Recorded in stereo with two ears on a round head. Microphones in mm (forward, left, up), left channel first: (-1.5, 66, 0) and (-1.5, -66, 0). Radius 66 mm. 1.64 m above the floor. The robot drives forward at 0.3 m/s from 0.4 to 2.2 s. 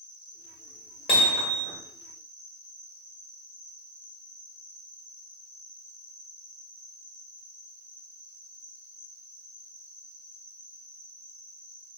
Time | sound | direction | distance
0.0 | an insect | 30° left (ahead or behind) | 1.7 m
1.1 | hammering | 40° left (ahead or behind) | 1.6 m